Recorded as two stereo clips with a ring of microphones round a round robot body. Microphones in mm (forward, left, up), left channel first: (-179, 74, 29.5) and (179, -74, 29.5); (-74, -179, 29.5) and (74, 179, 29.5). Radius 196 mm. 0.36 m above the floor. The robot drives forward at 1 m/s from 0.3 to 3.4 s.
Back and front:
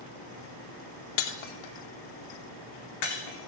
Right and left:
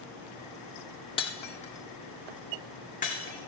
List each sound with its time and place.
1.2 s breaking glass: 170° left, 1.2 m; by 3.5 s 175° left, 3.5 m